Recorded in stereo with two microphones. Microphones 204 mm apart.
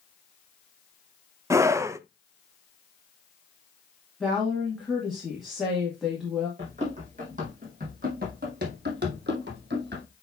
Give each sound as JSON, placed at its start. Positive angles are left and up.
{"t": 1.5, "sound": "a scream", "side_deg": -15, "distance_m": 0.6}
{"t": 4.2, "sound": "a woman speaking", "side_deg": 0, "distance_m": 2.5}
{"t": 6.6, "sound": "running footsteps", "side_deg": -35, "distance_m": 4.0}